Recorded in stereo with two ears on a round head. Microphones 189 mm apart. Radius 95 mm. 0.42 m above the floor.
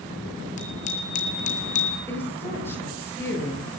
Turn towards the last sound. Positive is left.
turn(degrees=10)  # may be behind; listen again after turning